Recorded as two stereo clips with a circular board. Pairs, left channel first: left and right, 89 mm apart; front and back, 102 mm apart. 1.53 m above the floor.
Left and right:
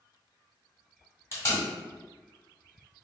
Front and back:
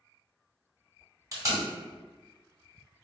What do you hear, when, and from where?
1.3 s tape being pulled: 135° left, 2.0 m